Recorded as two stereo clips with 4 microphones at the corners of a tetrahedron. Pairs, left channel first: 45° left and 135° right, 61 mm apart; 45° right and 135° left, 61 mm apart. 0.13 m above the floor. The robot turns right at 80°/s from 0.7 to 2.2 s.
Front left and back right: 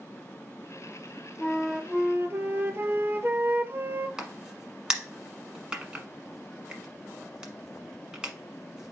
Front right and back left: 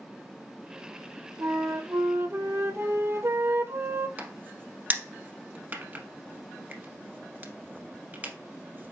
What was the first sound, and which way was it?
A flute, 115° left.